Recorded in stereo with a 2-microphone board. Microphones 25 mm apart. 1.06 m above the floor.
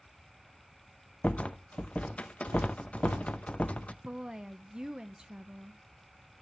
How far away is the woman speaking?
About 0.8 m.